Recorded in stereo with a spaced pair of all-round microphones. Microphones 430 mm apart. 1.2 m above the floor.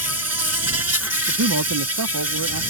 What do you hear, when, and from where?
0.0 s an insect: 35° right (ahead or behind)
1.3 s a man speaking: 45° right (ahead or behind)